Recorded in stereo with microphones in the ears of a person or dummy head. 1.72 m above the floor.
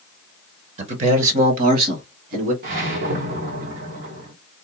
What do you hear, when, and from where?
0.8 s a man speaking: 35° right (ahead or behind), 0.8 m; by 2.5 s 50° right (ahead or behind), 1.6 m
2.6 s a whoosh: 60° right (ahead or behind), 1.2 m